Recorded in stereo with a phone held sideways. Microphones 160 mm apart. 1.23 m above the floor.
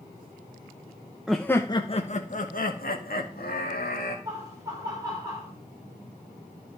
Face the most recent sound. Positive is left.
turn(degrees=-20)  # may be behind; listen again after turning